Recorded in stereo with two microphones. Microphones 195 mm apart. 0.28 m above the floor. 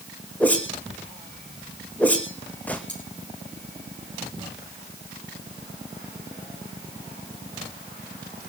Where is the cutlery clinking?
65° left (ahead or behind), 7 m.